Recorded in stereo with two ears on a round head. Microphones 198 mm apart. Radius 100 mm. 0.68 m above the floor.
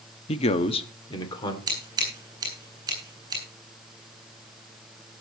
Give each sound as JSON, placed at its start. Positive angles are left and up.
{"t": 0.3, "sound": "a man speaking", "side_deg": 25, "distance_m": 0.9}
{"t": 1.7, "sound": "scissors", "side_deg": -20, "distance_m": 8.0}